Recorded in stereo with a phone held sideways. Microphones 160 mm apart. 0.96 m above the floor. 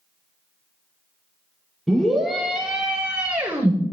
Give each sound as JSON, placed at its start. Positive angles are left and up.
{"t": 1.9, "sound": "a scream", "side_deg": 0, "distance_m": 2.5}